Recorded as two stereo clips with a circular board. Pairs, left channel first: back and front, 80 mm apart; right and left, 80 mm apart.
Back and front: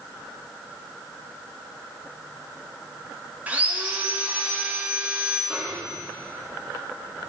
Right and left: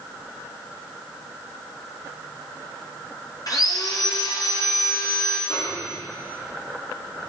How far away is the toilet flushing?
No toilet flushing in this recording.